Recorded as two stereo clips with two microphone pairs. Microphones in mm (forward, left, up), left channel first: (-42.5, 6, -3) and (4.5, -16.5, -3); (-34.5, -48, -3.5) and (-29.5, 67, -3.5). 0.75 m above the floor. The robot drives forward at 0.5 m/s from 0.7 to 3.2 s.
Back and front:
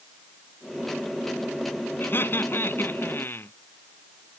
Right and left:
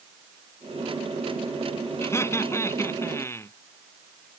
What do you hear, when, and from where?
2.0 s laughter: 160° right